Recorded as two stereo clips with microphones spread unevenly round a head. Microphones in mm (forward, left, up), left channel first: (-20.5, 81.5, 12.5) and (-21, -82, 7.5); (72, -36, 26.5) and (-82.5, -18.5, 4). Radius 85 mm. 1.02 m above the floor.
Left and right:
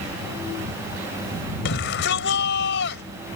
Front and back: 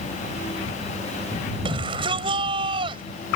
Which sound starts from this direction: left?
A shout, at 1.6 s.